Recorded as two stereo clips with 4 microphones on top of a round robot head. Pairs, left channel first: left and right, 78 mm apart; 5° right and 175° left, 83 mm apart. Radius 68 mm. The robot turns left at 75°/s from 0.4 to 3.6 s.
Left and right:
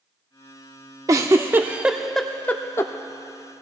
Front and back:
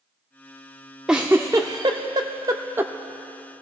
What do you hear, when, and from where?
1.1 s a giggle: 100° right, 0.5 m; by 2.9 s 120° left, 0.5 m